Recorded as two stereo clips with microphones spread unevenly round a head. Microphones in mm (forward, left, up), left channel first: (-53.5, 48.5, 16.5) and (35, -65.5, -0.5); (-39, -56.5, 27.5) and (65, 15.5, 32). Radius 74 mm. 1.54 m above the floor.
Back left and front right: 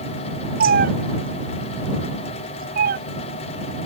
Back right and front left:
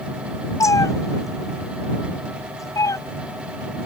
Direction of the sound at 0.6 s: 80° right.